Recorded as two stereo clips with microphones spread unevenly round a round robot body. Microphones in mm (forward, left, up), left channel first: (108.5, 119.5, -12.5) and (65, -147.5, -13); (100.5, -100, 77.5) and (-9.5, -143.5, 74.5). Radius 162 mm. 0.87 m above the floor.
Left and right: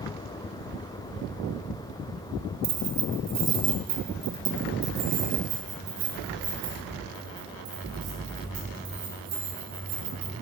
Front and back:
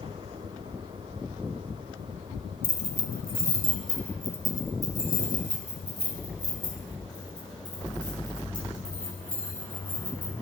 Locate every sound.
2.6 s keys jangling: 85° right, 1.4 m; by 10.3 s 110° right, 5 m